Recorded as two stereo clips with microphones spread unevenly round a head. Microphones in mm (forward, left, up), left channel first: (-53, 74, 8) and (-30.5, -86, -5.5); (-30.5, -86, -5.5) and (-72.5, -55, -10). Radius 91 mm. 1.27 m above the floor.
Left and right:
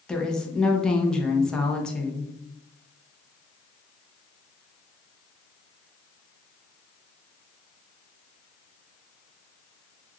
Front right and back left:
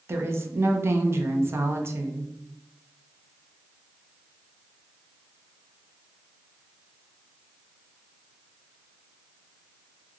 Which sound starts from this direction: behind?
A woman speaking, at 0.1 s.